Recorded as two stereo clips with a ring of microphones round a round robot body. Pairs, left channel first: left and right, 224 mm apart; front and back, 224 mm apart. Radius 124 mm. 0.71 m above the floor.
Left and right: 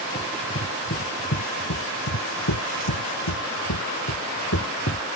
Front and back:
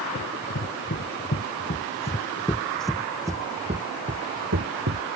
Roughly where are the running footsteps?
Ahead left.